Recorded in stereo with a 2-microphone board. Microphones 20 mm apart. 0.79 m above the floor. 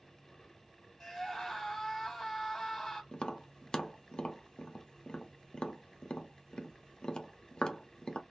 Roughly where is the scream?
Centre.